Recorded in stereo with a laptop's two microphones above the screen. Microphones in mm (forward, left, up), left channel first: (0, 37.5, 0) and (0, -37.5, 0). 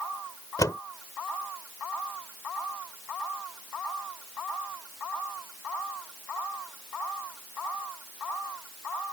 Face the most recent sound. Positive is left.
turn(degrees=55)  # may be behind; listen again after turning